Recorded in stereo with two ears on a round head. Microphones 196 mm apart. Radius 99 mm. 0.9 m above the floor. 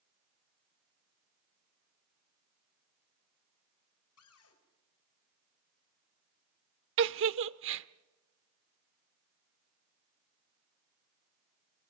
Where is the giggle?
60° right (ahead or behind), 0.8 m.